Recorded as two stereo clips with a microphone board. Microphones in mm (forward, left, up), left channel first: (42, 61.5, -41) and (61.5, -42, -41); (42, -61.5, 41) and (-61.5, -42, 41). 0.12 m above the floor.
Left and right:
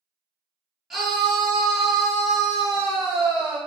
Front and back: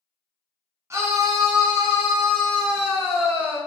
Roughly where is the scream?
Behind.